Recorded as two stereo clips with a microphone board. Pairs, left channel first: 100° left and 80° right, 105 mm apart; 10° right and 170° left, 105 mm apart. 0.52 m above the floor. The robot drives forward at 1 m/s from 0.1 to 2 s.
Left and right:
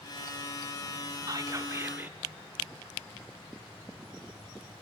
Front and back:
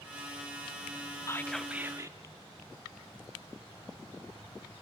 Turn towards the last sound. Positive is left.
turn(degrees=-140)